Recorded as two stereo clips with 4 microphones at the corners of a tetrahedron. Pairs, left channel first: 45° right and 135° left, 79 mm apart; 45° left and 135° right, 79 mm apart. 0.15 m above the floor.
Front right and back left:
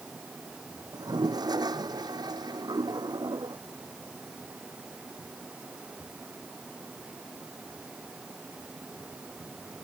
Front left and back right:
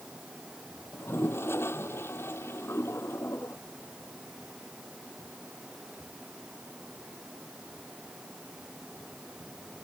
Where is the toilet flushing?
105° left.